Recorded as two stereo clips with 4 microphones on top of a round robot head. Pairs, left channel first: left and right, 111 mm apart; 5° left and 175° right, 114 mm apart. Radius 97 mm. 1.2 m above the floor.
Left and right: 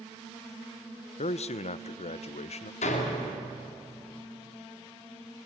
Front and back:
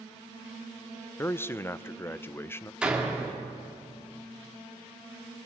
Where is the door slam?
105° left, 2.5 m.